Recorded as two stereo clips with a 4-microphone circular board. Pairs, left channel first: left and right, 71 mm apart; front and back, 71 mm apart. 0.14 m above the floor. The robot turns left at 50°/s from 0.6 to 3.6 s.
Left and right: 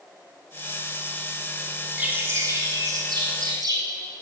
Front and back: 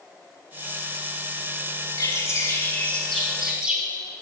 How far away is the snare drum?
No snare drum in this recording.